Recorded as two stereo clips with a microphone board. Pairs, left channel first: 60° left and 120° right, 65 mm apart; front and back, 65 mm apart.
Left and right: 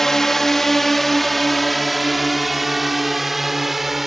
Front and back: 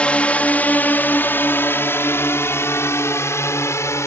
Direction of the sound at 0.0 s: 10° right.